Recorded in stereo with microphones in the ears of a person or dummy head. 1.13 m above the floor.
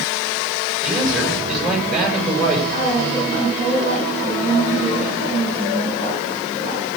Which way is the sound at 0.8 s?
5° right (ahead or behind).